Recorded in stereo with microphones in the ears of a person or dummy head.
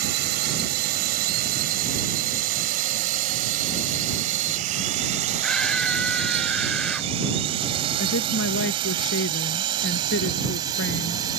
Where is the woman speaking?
65° left (ahead or behind).